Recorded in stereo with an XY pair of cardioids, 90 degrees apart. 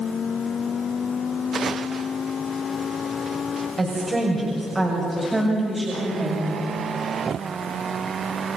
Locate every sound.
3.8 s a woman speaking: 30° right, 6 m; by 6.6 s 15° right, 6 m